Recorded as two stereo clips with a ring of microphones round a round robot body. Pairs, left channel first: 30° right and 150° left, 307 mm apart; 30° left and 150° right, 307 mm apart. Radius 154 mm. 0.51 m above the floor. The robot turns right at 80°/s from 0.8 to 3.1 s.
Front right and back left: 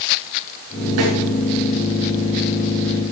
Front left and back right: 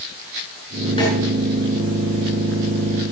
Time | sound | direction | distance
1.0 | a snare drum | 105° left | 4 m